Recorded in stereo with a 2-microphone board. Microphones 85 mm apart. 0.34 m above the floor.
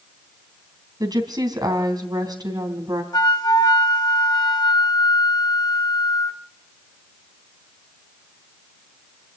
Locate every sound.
1.0 s a woman speaking: 50° right (ahead or behind), 3 m
3.1 s a flute: 55° left (ahead or behind), 1.4 m